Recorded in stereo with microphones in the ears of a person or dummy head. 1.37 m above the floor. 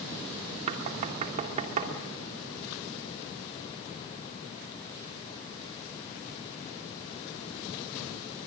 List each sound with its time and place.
0.7 s knocking: 40° right (ahead or behind), 2.5 m